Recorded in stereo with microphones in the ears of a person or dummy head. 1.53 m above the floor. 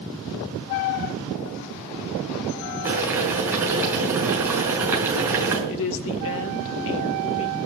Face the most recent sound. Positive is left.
turn(degrees=70)  # may be behind; listen again after turning